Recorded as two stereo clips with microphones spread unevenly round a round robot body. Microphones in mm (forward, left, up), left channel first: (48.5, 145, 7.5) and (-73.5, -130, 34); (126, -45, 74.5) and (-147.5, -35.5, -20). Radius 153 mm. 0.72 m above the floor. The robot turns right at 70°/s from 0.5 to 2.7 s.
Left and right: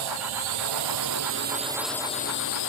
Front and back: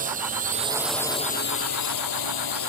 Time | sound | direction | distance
0.0 | a drone | 120° right | ?